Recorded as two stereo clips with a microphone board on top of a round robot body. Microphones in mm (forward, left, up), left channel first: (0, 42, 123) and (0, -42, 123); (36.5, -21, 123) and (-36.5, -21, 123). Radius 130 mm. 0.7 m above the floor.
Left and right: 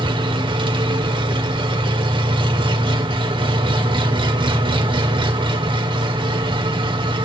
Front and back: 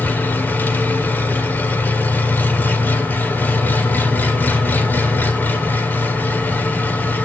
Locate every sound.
0.0 s an engine running: 65° right, 1.7 m